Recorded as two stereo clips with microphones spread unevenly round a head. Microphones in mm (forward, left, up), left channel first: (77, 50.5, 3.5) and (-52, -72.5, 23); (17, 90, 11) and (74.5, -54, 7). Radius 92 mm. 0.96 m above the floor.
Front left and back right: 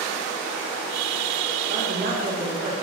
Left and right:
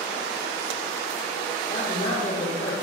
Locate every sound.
1.7 s a man speaking: straight behind, 2.5 m